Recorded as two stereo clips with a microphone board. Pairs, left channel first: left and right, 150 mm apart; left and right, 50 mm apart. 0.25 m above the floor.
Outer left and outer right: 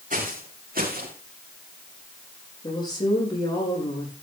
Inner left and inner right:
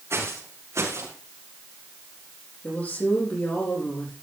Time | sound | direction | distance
0.1 | footsteps | 65° right (ahead or behind) | 5 m
2.6 | a woman speaking | 30° left (ahead or behind) | 9.5 m